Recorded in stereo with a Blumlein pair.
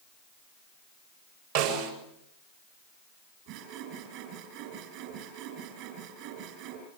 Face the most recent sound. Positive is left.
turn(degrees=-45)